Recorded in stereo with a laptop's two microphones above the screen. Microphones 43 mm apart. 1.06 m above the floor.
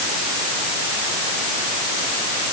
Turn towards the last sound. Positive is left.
No sound to turn to.